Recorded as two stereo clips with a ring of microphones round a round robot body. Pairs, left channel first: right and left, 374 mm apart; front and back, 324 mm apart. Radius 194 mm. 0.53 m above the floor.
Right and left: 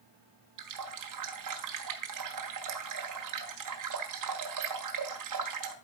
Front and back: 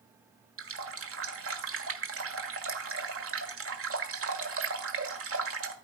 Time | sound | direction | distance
0.6 | a running tap | 130° left | 1.5 m